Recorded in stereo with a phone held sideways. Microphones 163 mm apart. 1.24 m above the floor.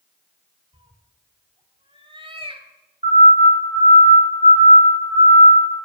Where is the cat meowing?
30° right (ahead or behind), 1.4 m.